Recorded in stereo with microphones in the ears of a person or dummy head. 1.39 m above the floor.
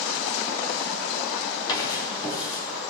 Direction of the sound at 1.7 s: 25° left (ahead or behind).